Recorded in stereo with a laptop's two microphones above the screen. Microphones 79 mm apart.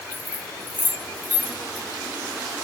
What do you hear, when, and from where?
0.1 s keys jangling: 20° left (ahead or behind), 2 m